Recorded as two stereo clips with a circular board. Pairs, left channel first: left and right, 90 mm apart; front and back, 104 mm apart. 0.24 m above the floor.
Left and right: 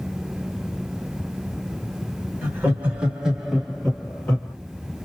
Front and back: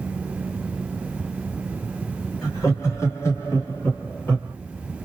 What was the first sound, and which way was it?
Laughter, 35° right.